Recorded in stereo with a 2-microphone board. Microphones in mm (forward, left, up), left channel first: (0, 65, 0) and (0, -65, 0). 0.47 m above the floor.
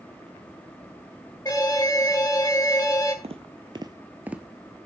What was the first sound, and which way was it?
An alarm, 30° left (ahead or behind).